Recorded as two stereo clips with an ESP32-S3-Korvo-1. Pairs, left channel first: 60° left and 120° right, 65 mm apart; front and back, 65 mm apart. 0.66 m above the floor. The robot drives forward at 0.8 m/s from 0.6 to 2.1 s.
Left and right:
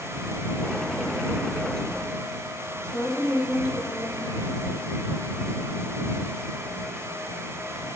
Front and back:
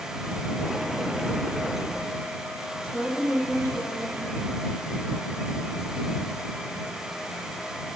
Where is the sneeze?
I don't hear a sneeze.